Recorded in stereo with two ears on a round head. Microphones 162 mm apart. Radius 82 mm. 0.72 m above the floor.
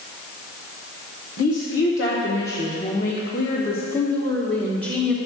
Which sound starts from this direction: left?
A woman speaking, at 1.4 s.